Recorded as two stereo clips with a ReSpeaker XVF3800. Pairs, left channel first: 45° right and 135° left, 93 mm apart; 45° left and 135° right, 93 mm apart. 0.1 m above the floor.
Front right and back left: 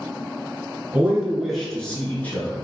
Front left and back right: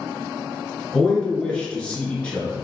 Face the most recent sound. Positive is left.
turn(degrees=-15)